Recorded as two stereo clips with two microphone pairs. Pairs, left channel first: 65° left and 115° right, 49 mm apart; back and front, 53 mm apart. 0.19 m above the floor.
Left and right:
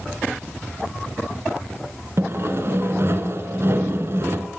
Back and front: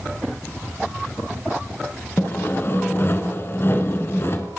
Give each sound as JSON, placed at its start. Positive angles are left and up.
{"t": 2.2, "sound": "sawing", "azimuth_deg": -145, "distance_m": 1.3}